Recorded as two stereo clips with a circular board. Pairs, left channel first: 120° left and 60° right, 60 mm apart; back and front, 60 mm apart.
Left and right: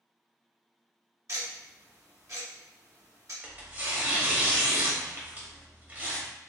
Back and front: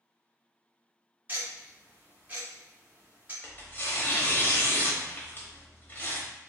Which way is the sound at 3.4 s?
125° right.